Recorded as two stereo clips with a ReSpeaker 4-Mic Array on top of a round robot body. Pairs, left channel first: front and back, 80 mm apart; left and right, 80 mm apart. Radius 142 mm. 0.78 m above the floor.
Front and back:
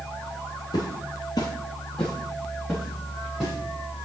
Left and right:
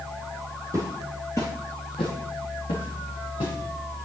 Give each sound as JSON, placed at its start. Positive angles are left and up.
{"t": 0.7, "sound": "footsteps", "azimuth_deg": -35, "distance_m": 1.1}